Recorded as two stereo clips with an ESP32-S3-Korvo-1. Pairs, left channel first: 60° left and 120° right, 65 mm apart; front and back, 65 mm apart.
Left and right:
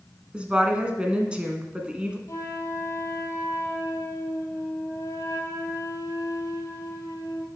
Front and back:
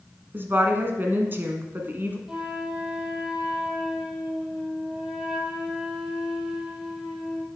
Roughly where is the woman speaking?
Behind.